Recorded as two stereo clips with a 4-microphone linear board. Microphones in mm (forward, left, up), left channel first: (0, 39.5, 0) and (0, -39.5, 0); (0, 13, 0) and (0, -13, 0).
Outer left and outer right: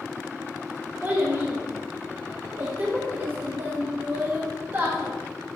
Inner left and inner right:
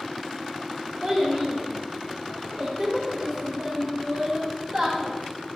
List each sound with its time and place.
1.0 s a child speaking: 25° right (ahead or behind), 0.6 m